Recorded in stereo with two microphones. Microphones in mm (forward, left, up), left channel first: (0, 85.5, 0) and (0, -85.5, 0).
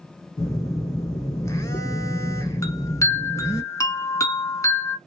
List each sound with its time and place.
0.4 s a phone buzzing: 20° left (ahead or behind), 0.8 m
2.6 s a chime: 20° left (ahead or behind), 0.9 m